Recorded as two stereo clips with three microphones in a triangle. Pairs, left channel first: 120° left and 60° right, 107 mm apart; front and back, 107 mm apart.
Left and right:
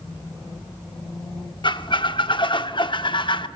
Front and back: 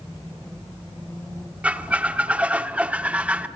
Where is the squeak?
105° left, 0.9 m.